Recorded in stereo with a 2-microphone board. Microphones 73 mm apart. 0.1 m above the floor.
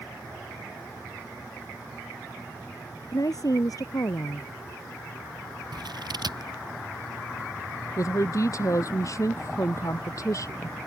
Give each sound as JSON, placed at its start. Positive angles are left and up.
{"t": 3.1, "sound": "a woman speaking", "side_deg": 55}
{"t": 5.7, "sound": "scissors", "side_deg": -75}
{"t": 8.0, "sound": "a woman speaking", "side_deg": 45}